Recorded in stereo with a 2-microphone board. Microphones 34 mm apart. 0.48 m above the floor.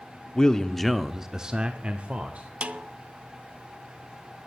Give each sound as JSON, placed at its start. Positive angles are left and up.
{"t": 0.3, "sound": "a man speaking", "side_deg": 25, "distance_m": 0.8}
{"t": 2.6, "sound": "a snare drum", "side_deg": -45, "distance_m": 0.7}